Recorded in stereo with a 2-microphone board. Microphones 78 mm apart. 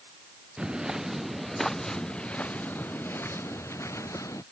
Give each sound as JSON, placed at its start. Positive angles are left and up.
{"t": 0.6, "sound": "footsteps", "side_deg": -10}